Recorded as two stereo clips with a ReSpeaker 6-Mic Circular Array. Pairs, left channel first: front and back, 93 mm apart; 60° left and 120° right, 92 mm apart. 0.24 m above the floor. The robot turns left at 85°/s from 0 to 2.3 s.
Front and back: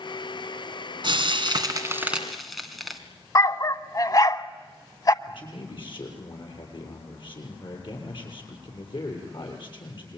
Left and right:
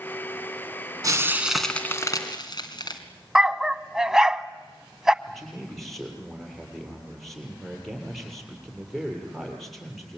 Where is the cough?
I don't hear a cough.